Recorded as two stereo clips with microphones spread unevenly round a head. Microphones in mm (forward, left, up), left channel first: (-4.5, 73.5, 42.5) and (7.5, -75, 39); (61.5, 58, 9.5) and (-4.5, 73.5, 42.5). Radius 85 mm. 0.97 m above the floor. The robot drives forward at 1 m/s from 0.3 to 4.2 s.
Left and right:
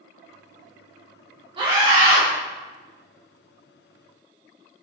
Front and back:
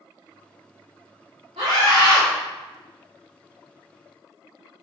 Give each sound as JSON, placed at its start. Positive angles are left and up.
{"t": 1.6, "sound": "a scream", "azimuth_deg": -145, "distance_m": 1.7}